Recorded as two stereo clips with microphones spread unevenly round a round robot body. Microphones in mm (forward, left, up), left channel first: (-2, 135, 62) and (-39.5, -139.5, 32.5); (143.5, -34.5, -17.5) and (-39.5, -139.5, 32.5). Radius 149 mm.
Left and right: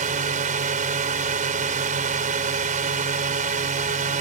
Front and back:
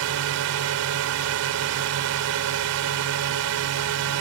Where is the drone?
160° right.